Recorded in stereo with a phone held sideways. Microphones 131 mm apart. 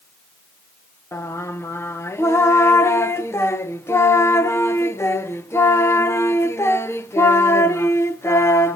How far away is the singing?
About 0.8 m.